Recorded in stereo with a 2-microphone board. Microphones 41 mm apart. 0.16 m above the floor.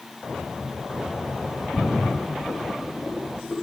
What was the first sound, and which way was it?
A splash, 10° left (ahead or behind).